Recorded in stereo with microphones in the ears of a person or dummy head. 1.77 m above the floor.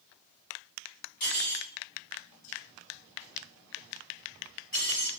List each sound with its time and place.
1.2 s cutlery clinking: 45° left (ahead or behind), 1.7 m